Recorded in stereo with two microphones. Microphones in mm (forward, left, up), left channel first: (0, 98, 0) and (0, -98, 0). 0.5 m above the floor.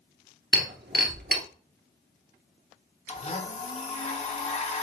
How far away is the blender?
About 1.1 m.